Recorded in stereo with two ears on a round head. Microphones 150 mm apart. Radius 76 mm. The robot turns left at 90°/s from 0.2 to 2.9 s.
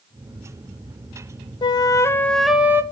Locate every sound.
1.6 s a flute: 25° left (ahead or behind), 0.5 m; by 2.8 s 15° right (ahead or behind), 0.5 m